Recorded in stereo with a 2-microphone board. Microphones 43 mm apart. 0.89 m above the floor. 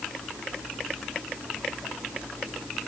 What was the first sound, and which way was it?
Only background noise.